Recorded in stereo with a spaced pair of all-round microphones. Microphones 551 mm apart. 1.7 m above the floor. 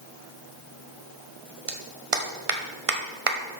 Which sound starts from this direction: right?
A clap, at 1.7 s.